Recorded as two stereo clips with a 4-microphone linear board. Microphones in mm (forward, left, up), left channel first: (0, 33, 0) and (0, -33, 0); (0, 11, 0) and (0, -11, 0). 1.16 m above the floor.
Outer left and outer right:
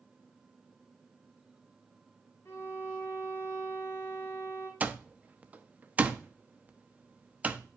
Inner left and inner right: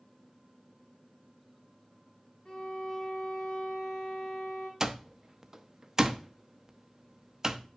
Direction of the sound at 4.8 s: 25° right (ahead or behind).